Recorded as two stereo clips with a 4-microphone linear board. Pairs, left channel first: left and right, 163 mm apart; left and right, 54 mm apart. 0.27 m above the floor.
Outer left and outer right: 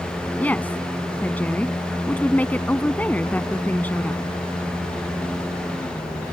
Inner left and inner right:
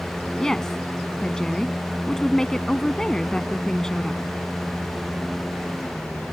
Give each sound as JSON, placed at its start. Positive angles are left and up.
{"t": 0.4, "sound": "a woman speaking", "side_deg": 10}